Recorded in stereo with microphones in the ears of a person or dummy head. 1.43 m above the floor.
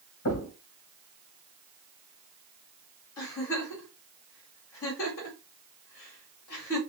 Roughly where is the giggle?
Left.